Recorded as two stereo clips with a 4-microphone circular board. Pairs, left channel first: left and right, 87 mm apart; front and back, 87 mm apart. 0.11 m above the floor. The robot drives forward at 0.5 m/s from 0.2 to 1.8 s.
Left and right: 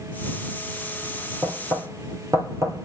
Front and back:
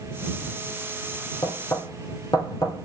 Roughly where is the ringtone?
I don't hear a ringtone.